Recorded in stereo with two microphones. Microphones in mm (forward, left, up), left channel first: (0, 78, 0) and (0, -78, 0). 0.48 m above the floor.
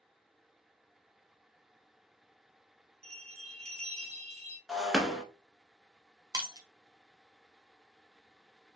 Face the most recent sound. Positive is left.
turn(degrees=-25)  # may be behind; listen again after turning